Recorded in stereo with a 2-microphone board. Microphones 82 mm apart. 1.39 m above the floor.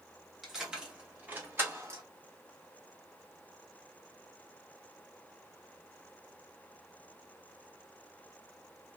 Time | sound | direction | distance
0.4 | keys jangling | centre (ahead or behind) | 1.2 m